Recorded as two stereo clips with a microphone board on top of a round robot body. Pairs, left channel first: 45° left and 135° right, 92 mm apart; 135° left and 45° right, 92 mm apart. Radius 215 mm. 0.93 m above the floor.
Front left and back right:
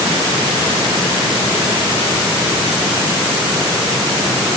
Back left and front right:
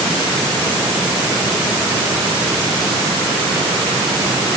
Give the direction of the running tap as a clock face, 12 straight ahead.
No running tap in this recording.